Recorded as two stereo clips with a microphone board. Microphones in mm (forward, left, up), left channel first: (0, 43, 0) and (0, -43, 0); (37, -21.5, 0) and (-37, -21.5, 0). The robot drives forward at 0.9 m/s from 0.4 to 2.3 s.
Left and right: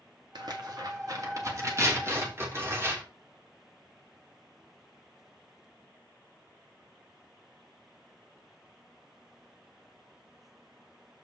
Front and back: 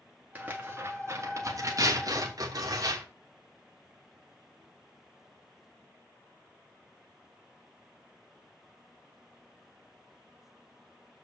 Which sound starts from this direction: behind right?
Tearing paper, at 0.3 s.